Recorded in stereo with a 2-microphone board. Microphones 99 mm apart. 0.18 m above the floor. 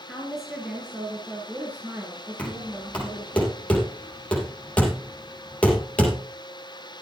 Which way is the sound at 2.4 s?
15° left (ahead or behind).